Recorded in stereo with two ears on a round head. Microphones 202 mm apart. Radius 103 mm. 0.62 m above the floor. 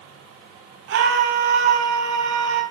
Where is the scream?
50° right (ahead or behind), 7 m.